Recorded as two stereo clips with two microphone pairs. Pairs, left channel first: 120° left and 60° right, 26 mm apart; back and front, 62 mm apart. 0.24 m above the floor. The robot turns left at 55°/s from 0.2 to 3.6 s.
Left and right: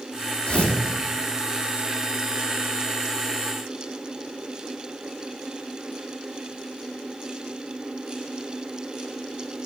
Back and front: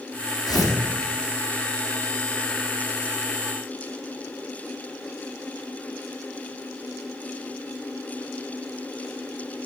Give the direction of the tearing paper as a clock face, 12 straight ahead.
7 o'clock.